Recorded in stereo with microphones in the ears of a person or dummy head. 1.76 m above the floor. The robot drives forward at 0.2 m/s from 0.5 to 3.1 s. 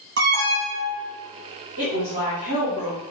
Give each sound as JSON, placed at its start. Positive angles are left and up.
{"t": 0.2, "sound": "an alarm", "side_deg": -55, "distance_m": 0.9}
{"t": 1.8, "sound": "a woman speaking", "side_deg": -35, "distance_m": 0.8}